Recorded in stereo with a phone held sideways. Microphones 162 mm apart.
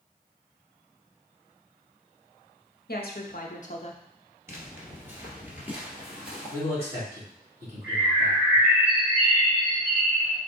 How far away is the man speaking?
About 2.5 m.